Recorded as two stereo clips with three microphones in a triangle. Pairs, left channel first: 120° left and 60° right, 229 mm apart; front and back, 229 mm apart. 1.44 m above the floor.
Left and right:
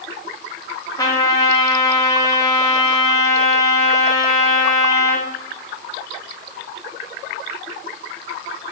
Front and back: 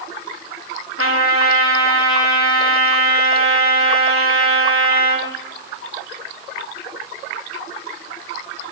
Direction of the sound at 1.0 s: 165° right.